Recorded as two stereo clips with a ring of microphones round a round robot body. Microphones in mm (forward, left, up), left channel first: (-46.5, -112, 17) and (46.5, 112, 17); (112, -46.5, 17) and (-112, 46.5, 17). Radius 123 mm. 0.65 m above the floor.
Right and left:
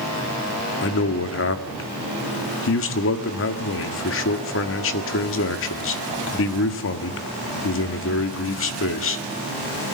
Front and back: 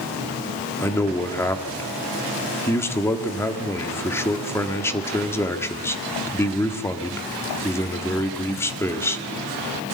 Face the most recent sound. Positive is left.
turn(degrees=-100)